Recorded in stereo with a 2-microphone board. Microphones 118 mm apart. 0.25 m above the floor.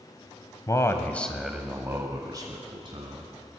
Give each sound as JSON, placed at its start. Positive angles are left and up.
{"t": 0.7, "sound": "a man speaking", "side_deg": 30, "distance_m": 1.2}